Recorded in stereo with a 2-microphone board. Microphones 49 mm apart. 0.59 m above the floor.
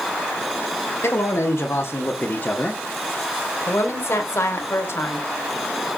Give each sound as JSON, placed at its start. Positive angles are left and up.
{"t": 1.0, "sound": "a man speaking", "side_deg": 55, "distance_m": 2.0}
{"t": 3.7, "sound": "a woman speaking", "side_deg": 60, "distance_m": 2.5}